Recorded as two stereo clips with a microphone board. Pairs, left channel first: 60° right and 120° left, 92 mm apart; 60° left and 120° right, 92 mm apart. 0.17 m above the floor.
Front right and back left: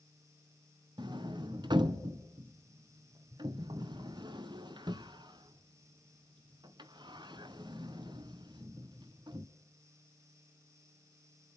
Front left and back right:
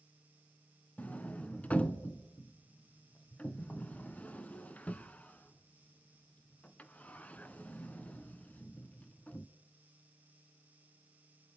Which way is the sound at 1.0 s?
130° left.